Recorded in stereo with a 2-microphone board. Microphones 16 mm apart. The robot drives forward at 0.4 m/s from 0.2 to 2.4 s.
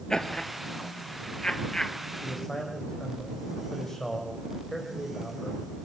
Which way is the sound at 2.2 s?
25° left (ahead or behind).